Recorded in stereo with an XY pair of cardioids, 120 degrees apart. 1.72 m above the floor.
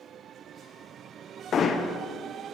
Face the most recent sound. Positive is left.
turn(degrees=50)